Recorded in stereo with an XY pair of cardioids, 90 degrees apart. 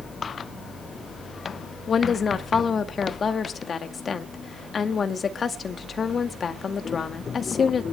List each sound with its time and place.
1.9 s a woman speaking: 50° left, 2 m